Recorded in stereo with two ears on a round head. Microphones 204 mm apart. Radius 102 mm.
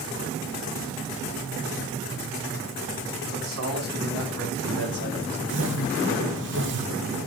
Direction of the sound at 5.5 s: 55° right (ahead or behind).